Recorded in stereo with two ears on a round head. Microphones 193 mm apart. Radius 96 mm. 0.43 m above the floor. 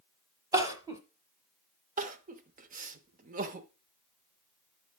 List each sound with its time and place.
0.5 s crying: 15° right (ahead or behind), 1.1 m
2.0 s crying: 40° right (ahead or behind), 0.8 m